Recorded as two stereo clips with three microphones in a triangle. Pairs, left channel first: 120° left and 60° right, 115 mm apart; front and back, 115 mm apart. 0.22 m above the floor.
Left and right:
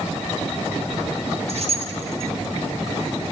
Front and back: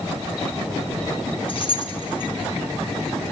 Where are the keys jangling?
35° right, 1.4 m.